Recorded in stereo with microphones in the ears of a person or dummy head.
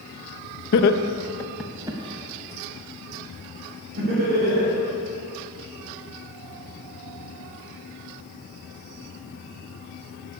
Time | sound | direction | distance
0.7 | laughter | 65° left (ahead or behind) | 1.0 m